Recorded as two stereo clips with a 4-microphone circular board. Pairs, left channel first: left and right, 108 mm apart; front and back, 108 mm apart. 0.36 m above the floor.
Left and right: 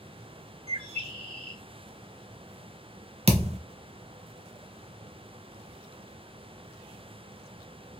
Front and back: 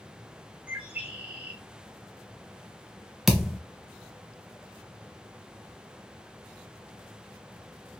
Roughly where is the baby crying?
I don't hear a baby crying.